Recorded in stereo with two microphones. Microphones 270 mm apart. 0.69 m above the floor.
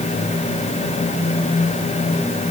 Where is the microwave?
No microwave in this recording.